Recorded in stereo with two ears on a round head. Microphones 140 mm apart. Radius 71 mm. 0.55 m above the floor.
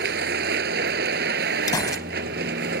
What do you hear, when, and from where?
0.0 s a vehicle: 75° right (ahead or behind)
1.7 s a gunshot: 25° left (ahead or behind)